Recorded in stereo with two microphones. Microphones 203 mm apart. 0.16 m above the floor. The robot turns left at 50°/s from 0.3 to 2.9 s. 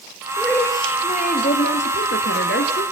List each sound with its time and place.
0.4 s a woman speaking: straight behind, 2.5 m; by 2.8 s 55° left, 2.5 m